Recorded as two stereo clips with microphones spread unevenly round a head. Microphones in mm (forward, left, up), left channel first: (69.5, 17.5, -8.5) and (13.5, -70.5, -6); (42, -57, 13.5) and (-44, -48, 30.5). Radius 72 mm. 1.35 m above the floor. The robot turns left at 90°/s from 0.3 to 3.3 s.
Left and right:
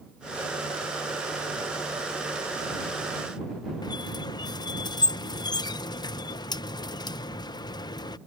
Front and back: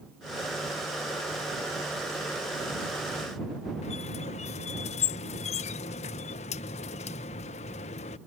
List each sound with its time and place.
3.8 s a squeak: 5° left